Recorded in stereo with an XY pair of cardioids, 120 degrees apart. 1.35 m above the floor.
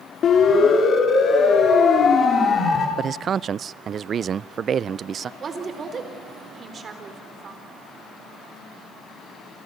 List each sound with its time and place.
0.2 s a siren: 50° left, 4.5 m; by 2.9 s 45° left, 6 m
3.0 s a man speaking: 40° right, 0.5 m
5.4 s a woman speaking: 40° right, 4 m